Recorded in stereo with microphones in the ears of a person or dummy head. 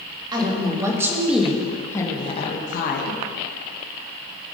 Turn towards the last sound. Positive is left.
turn(degrees=60)  # may be behind; listen again after turning